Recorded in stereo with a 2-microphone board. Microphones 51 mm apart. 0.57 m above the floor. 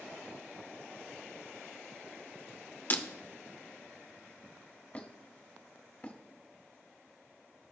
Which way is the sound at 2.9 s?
40° left (ahead or behind).